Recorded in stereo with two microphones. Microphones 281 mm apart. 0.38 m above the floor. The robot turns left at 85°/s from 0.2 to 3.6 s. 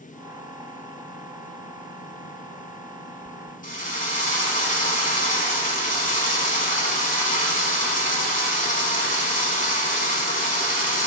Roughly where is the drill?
Left.